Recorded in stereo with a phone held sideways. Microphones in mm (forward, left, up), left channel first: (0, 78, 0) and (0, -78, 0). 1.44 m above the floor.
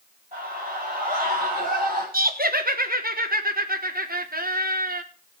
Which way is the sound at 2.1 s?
70° right (ahead or behind).